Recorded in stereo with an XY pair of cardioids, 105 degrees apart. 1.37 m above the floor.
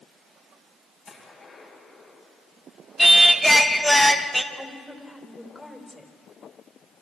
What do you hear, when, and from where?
1.1 s a gunshot: 50° left, 10 m
3.0 s singing: 5° left, 1.3 m
4.5 s a woman speaking: 15° left, 4 m